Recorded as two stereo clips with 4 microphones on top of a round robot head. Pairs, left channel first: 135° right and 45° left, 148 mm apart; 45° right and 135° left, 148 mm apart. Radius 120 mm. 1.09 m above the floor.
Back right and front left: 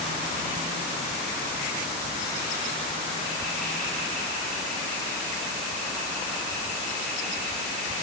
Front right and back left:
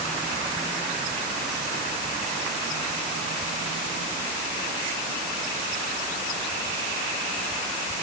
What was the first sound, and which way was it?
Only background noise.